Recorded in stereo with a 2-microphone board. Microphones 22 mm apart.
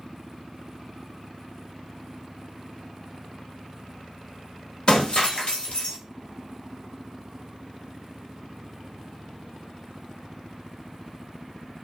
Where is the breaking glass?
40° left (ahead or behind), 1.0 m.